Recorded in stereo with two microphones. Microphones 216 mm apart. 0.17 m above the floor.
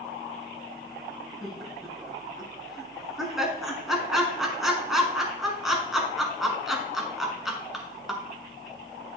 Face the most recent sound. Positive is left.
turn(degrees=0)  # may be behind; listen again after turning